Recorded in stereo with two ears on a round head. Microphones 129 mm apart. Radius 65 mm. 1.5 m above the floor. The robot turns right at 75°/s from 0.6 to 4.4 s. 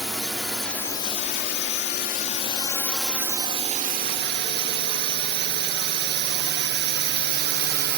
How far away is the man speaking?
No man speaking in this recording.